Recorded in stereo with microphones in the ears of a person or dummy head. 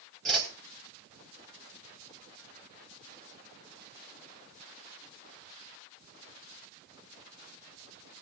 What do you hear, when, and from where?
0.2 s a whoosh: centre (ahead or behind), 3 m